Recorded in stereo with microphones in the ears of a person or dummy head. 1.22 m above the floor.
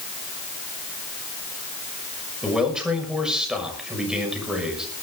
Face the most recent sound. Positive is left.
turn(degrees=-5)  # may be behind; listen again after turning